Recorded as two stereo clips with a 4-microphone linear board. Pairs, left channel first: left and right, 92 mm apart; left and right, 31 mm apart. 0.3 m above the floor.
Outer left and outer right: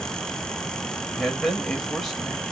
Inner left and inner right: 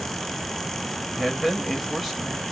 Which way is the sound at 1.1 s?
Centre (ahead or behind).